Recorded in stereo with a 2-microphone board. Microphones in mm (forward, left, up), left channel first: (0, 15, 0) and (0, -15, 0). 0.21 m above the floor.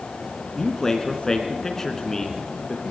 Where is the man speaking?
20° left (ahead or behind), 3 m.